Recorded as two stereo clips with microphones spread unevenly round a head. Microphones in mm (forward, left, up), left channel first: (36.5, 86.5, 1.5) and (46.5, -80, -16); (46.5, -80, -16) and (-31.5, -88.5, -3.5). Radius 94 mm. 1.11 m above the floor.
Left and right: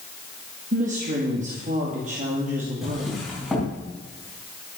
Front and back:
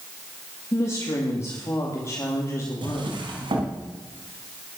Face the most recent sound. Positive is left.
turn(degrees=-175)